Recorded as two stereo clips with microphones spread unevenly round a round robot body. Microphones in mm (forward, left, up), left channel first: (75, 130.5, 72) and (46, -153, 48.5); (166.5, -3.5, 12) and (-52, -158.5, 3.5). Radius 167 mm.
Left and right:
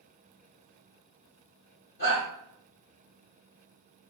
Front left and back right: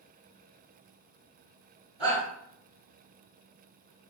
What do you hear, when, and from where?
2.0 s a shout: 130° left, 1.8 m